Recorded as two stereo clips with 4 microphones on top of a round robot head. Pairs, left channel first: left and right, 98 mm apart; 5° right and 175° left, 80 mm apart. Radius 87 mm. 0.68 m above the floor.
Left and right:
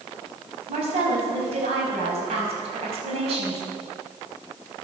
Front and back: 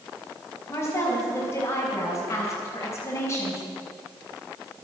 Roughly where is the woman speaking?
Ahead right.